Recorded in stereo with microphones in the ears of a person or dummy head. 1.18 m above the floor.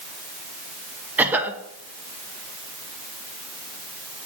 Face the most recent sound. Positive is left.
turn(degrees=-10)  # may be behind; listen again after turning